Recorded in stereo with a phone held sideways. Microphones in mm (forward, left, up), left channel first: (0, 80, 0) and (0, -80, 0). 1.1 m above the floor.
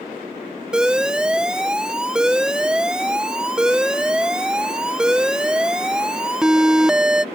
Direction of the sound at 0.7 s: 5° right (ahead or behind).